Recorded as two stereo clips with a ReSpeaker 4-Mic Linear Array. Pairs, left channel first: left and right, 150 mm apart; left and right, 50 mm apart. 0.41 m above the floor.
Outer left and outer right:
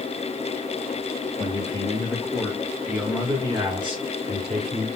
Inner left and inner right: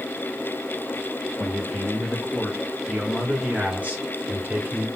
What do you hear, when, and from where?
1.4 s a man speaking: 30° left (ahead or behind), 1.2 m; by 4.9 s 50° right (ahead or behind), 1.6 m